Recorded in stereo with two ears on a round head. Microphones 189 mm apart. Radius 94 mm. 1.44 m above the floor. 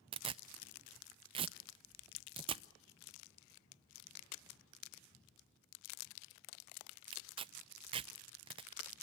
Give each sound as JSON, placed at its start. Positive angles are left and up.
{"t": 0.1, "sound": "tearing paper", "side_deg": -25, "distance_m": 0.6}